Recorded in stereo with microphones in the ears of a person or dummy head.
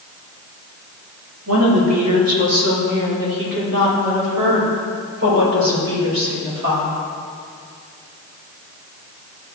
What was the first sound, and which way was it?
A woman speaking, 80° right.